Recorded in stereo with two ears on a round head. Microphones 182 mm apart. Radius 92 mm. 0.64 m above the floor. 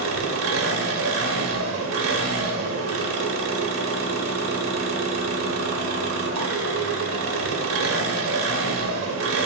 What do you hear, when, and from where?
0.0 s an engine running: 75° right (ahead or behind), 0.8 m